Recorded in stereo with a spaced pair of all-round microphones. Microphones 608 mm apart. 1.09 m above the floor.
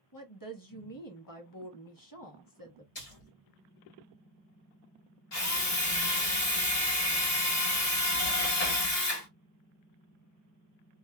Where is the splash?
70° left (ahead or behind), 1.4 m.